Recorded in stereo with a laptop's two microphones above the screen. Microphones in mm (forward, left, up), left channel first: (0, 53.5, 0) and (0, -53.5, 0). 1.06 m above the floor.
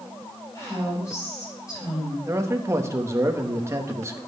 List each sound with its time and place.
0.6 s a woman speaking: 30° left (ahead or behind), 6 m
2.3 s a man speaking: 25° right (ahead or behind), 1.0 m